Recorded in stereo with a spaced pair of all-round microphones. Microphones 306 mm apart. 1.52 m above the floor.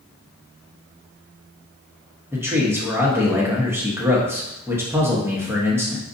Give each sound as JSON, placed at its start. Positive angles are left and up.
{"t": 2.3, "sound": "a man speaking", "side_deg": -10, "distance_m": 1.2}